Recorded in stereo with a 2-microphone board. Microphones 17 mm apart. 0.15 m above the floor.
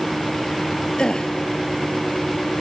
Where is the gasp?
45° left (ahead or behind), 1.2 m.